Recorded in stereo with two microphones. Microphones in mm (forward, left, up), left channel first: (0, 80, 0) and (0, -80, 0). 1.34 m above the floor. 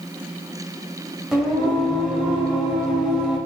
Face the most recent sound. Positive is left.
turn(degrees=-5)  # may be behind; listen again after turning